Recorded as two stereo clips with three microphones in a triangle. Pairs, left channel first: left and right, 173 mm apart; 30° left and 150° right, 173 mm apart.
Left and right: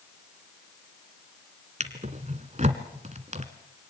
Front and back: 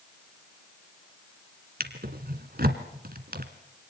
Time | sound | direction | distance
1.8 | a drawer | 135° right | 1.7 m